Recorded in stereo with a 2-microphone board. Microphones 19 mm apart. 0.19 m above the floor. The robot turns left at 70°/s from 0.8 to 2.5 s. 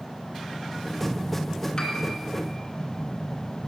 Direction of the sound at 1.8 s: 35° left (ahead or behind).